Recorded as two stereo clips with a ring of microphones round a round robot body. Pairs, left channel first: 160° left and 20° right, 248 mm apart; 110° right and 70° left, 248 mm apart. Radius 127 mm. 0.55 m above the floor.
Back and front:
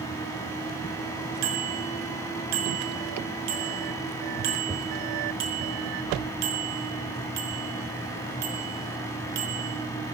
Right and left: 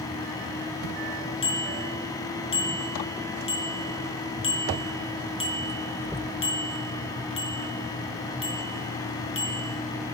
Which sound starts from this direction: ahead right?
A bicycle bell, at 1.4 s.